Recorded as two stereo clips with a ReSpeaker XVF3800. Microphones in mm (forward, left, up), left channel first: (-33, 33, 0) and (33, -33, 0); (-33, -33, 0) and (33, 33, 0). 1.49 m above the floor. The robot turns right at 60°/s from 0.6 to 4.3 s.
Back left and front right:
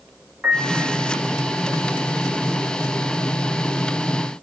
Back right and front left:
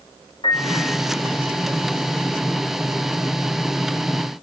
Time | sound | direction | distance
0.4 | a piano | 130° right | 3.5 m